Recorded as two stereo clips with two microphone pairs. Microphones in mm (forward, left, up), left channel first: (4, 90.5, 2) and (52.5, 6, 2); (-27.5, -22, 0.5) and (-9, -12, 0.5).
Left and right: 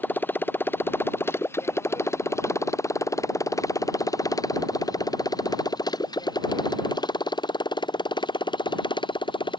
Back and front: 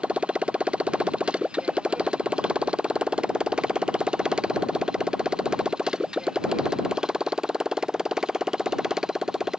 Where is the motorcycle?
50° left; by 9.6 s 85° left.